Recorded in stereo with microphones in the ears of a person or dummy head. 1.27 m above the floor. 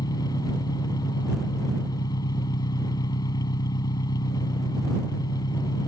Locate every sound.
0.0 s an engine running: 25° left (ahead or behind)